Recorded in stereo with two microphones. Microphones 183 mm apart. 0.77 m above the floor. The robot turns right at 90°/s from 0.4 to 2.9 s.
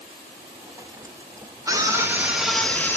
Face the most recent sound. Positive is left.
turn(degrees=10)  # may be behind; listen again after turning